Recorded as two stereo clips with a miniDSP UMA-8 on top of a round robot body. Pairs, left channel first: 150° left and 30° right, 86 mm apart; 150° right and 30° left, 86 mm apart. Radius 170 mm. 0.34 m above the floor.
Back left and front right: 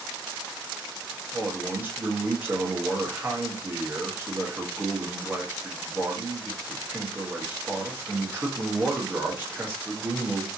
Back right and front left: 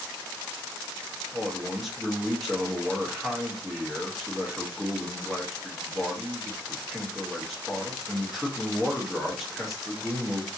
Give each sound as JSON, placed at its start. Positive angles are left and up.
{"t": 1.3, "sound": "a man speaking", "azimuth_deg": -55, "distance_m": 1.2}